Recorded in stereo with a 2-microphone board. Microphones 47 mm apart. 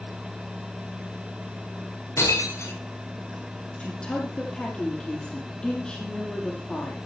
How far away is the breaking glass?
About 6 m.